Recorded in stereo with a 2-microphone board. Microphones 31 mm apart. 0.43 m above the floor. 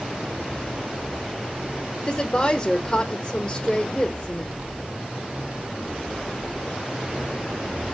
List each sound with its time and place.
2.1 s a woman speaking: 25° left (ahead or behind), 0.8 m